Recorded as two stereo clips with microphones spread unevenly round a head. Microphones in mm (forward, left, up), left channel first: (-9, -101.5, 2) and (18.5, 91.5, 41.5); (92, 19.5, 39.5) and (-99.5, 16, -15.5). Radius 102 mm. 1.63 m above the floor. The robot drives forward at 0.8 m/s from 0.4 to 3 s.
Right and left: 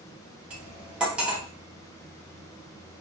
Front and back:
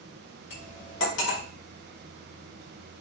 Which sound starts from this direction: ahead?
Cutlery clinking, at 0.5 s.